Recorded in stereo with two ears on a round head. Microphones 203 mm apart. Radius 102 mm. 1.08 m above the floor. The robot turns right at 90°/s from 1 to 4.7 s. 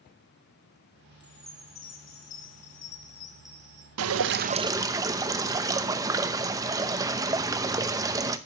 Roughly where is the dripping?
Right.